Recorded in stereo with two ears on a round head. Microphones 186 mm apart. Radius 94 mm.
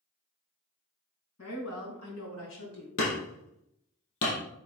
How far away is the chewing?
No chewing in this recording.